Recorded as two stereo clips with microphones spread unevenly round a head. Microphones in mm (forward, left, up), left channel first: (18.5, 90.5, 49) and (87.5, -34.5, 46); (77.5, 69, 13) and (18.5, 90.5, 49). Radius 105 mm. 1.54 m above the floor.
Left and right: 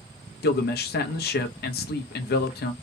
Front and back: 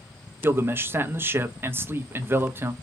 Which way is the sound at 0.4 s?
110° left.